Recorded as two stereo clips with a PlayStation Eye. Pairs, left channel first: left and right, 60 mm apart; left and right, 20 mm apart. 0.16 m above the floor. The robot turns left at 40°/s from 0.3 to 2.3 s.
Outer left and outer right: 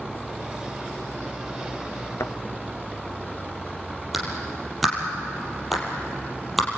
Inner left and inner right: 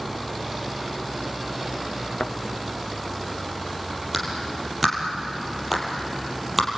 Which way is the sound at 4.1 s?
Centre (ahead or behind).